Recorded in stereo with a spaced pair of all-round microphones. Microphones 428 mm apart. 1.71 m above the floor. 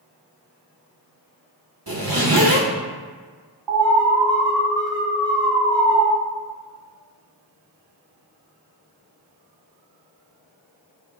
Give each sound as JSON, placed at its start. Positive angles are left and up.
{"t": 1.9, "sound": "a zipper", "side_deg": -50, "distance_m": 1.2}
{"t": 3.7, "sound": "an alarm", "side_deg": -65, "distance_m": 1.9}